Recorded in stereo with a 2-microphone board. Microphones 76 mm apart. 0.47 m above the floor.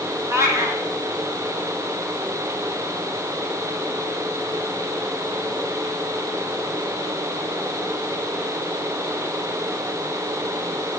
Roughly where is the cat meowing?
Right.